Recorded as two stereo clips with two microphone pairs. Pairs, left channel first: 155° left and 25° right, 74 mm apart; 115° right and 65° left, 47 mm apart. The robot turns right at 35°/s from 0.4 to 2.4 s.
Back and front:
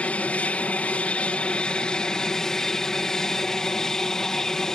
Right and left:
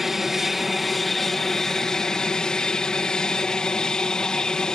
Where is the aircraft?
145° left; by 4.8 s 145° right.